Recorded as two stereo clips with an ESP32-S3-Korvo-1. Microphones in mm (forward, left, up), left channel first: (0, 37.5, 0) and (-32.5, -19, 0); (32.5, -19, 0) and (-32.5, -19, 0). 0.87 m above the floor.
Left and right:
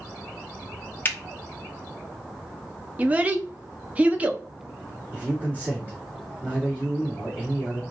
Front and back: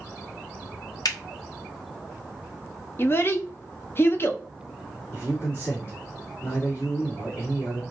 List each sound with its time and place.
1.1 s a finger snap: 5° left, 0.6 m
3.0 s a child speaking: 50° right, 0.6 m
5.1 s a man speaking: 60° right, 2 m